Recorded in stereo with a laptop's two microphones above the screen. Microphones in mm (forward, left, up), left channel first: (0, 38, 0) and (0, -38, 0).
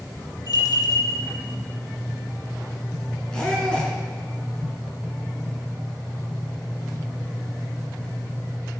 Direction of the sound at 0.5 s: 60° left (ahead or behind).